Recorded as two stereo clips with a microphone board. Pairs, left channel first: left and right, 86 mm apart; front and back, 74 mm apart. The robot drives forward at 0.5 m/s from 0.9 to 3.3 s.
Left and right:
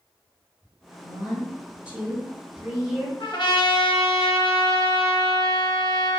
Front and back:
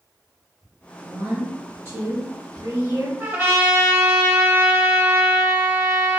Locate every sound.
1.0 s a woman speaking: 145° right, 1.6 m; by 3.1 s 165° right, 2.5 m
3.2 s a trumpet: 120° left, 0.6 m; by 6.2 s 125° left, 0.6 m